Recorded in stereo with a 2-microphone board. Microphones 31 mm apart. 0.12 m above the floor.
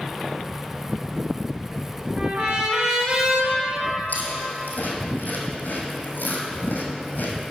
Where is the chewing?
75° left (ahead or behind), 1.7 m.